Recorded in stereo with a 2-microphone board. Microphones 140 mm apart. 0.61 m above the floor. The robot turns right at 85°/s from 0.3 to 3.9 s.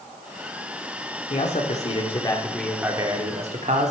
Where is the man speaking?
65° left, 1.7 m; by 3.9 s 75° right, 1.7 m.